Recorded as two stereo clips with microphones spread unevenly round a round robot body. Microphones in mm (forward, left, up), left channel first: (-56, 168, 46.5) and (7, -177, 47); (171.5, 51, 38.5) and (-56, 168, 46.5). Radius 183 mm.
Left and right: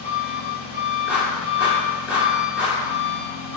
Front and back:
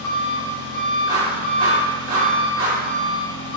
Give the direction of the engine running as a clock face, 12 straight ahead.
12 o'clock.